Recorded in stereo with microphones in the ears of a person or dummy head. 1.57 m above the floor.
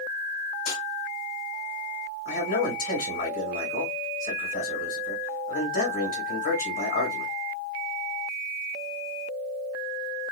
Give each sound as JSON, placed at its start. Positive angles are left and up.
{"t": 0.7, "sound": "a snare drum", "side_deg": 70, "distance_m": 1.7}
{"t": 2.2, "sound": "a man speaking", "side_deg": 45, "distance_m": 2.5}